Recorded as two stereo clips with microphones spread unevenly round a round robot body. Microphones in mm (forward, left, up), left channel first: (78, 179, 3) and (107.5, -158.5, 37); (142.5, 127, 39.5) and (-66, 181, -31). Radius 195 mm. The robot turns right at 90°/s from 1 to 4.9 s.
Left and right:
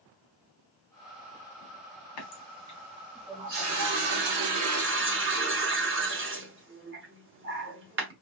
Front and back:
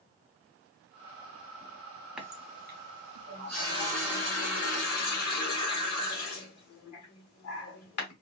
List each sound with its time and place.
2.2 s a running tap: 85° left, 1.2 m; by 8.1 s 30° right, 1.2 m